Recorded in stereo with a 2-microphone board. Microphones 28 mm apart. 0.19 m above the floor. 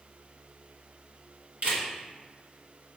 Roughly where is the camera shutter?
Right.